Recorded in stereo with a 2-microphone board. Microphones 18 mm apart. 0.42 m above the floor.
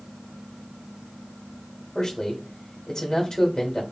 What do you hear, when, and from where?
1.9 s a man speaking: 35° left (ahead or behind), 1.1 m